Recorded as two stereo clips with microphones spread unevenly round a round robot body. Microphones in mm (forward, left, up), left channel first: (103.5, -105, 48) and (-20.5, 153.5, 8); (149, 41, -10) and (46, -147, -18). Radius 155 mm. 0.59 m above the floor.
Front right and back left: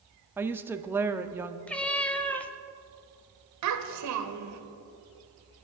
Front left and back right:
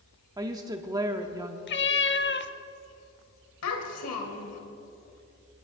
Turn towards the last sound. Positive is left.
turn(degrees=95)